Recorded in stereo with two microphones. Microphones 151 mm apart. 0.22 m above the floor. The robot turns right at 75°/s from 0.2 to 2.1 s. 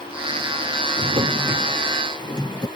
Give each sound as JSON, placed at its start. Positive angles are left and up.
{"t": 1.0, "sound": "a drawer", "azimuth_deg": -55}